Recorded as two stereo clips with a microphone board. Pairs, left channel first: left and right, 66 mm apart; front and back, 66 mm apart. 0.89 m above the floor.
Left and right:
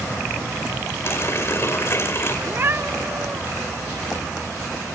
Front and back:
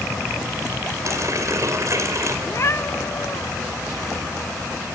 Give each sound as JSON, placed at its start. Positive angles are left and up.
{"t": 1.1, "sound": "a running tap", "azimuth_deg": 140, "distance_m": 2.0}
{"t": 2.5, "sound": "a cat meowing", "azimuth_deg": -40, "distance_m": 0.6}